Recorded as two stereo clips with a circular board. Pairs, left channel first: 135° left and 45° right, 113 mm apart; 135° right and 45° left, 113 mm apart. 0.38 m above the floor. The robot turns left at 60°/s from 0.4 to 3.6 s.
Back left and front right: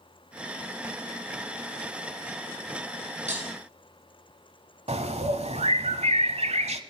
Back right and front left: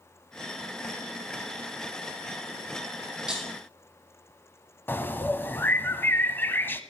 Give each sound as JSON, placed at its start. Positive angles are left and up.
{"t": 3.3, "sound": "breaking glass", "azimuth_deg": -35, "distance_m": 4.0}
{"t": 4.9, "sound": "a bird", "azimuth_deg": -65, "distance_m": 0.9}